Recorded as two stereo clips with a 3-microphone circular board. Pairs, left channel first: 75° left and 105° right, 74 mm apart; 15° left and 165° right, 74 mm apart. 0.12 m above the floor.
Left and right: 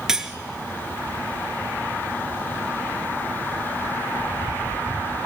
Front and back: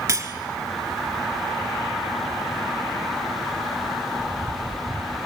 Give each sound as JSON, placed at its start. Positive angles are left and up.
{"t": 0.1, "sound": "cutlery clinking", "azimuth_deg": 175, "distance_m": 1.1}